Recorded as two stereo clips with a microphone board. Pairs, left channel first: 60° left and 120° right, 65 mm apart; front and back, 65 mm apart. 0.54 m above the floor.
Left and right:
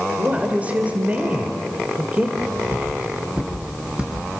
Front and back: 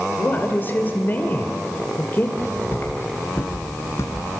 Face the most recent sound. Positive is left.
turn(degrees=-45)